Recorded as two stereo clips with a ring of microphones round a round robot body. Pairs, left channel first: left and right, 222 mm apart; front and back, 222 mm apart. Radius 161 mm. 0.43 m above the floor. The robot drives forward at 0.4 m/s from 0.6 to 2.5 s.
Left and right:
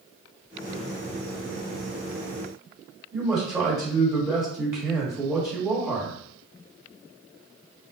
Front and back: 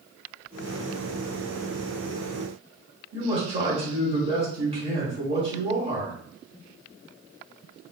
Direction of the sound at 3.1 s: 150° right.